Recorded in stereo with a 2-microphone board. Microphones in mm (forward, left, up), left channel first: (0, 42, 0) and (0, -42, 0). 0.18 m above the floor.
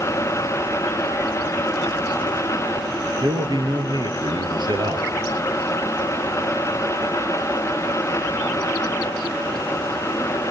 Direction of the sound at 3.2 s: 70° right (ahead or behind).